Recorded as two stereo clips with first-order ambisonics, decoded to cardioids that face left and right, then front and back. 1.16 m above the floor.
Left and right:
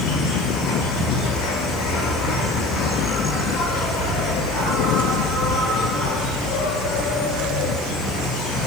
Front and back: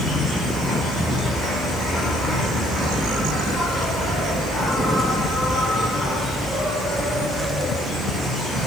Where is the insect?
100° left, 5.5 m.